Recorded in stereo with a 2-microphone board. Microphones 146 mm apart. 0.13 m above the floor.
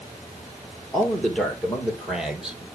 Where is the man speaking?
5° left (ahead or behind), 2.5 m; by 2.7 s 5° right (ahead or behind), 3.5 m.